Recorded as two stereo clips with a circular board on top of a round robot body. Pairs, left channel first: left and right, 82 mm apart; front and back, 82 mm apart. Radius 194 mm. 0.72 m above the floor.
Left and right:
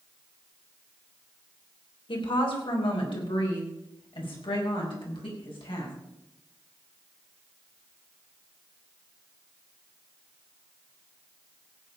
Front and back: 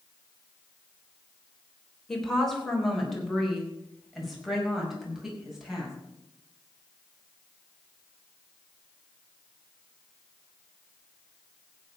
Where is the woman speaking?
85° left, 4 m; by 5.9 s 95° left, 6 m.